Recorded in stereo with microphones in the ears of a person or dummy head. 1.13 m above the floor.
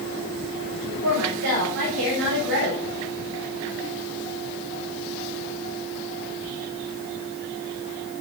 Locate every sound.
1.0 s a woman speaking: 85° right, 4 m; by 2.8 s 75° right (ahead or behind), 3.5 m